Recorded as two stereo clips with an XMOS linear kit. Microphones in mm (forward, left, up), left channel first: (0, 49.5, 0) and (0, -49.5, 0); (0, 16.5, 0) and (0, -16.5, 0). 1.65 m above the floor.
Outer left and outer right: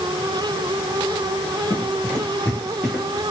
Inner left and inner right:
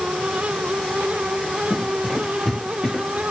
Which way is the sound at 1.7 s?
20° left (ahead or behind).